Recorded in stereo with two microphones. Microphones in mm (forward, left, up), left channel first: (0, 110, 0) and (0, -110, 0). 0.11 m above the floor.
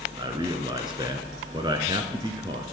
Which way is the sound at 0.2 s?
20° right (ahead or behind).